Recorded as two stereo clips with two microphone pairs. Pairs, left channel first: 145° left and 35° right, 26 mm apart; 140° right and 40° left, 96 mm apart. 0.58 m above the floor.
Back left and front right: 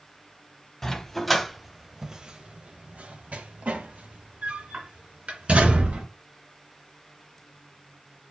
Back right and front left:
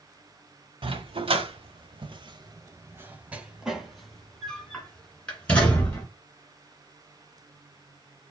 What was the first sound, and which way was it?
A dog barking, 65° left.